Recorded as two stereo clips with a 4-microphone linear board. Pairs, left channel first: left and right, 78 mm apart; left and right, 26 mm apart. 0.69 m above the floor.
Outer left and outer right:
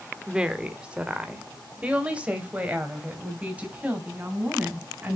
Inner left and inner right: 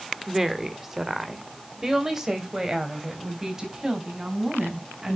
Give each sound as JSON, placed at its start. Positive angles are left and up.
{"t": 0.3, "sound": "a woman speaking", "side_deg": -10, "distance_m": 1.3}